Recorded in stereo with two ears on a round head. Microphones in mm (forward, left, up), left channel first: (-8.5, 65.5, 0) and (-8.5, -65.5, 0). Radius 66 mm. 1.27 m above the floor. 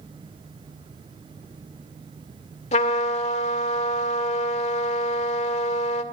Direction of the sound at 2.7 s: 55° left (ahead or behind).